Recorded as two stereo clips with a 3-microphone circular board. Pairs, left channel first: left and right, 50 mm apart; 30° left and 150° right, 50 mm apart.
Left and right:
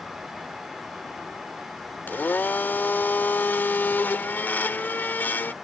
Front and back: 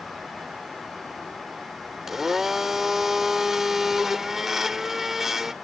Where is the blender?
130° left.